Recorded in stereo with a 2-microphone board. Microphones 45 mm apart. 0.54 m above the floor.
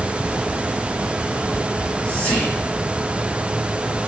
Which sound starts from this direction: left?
Whispering, at 1.7 s.